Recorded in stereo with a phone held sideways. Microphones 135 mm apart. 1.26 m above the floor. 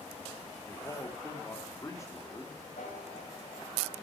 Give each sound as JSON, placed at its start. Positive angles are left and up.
{"t": 0.7, "sound": "a man speaking", "side_deg": 25, "distance_m": 2.5}
{"t": 2.8, "sound": "a piano", "side_deg": 80, "distance_m": 3.5}